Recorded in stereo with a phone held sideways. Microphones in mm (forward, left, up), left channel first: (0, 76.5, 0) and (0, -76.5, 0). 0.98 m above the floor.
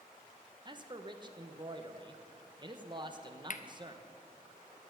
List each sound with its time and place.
0.7 s a man speaking: 30° right (ahead or behind), 0.9 m
3.5 s cutlery clinking: 60° left (ahead or behind), 0.6 m